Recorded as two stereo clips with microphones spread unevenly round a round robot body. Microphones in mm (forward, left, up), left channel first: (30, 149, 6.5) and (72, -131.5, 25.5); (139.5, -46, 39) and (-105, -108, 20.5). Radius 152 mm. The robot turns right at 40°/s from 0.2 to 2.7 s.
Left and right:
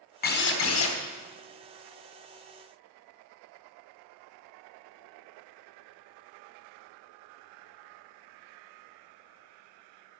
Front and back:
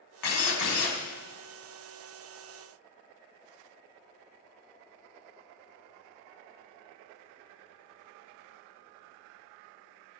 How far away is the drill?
About 2.5 m.